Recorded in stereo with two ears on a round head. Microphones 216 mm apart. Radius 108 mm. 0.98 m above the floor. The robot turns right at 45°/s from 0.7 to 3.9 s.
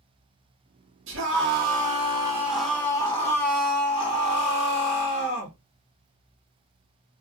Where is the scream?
70° right, 1.5 m; by 5.5 s 55° left, 1.5 m.